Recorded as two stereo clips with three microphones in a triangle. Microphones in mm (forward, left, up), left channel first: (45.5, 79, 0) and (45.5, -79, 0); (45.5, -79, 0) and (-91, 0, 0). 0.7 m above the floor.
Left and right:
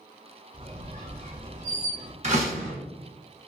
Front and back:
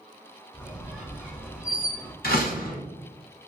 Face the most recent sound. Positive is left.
turn(degrees=-45)